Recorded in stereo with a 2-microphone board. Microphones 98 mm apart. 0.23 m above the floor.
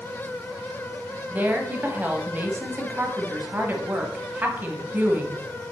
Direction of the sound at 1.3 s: 20° right (ahead or behind).